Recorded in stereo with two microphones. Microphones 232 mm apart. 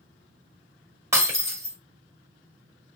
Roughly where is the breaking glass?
Centre.